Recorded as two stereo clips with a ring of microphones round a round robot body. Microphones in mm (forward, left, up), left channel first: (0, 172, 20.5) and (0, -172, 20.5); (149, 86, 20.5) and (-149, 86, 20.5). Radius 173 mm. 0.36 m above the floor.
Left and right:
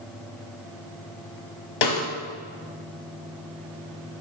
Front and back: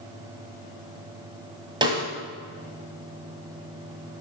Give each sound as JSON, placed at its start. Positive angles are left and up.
{"t": 1.8, "sound": "a snare drum", "azimuth_deg": 105, "distance_m": 1.6}